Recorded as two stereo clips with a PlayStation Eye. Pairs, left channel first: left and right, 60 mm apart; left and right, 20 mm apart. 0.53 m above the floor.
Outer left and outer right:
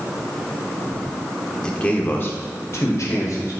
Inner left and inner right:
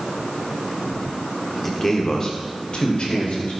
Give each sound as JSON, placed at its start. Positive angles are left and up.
{"t": 1.6, "sound": "a man speaking", "side_deg": 15, "distance_m": 1.0}